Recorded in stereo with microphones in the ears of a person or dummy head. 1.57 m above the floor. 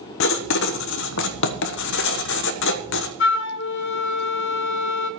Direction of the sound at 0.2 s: 65° left (ahead or behind).